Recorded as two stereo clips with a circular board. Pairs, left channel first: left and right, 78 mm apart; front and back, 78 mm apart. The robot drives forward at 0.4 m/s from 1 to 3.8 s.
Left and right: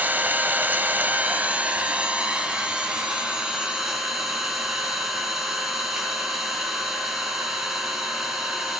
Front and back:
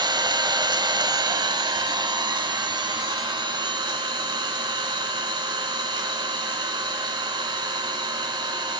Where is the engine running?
155° right, 0.8 m; by 8.8 s 170° right, 1.9 m.